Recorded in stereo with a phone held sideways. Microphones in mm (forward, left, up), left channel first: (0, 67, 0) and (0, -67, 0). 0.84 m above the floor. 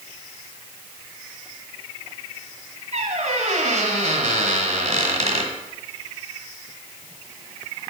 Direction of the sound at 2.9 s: 60° right (ahead or behind).